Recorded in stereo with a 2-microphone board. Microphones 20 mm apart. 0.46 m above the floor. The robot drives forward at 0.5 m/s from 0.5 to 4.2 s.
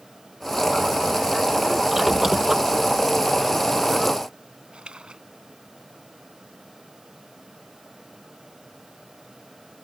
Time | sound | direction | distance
1.9 | a squeak | 20° right (ahead or behind) | ?
4.7 | a splash | 75° right (ahead or behind) | ?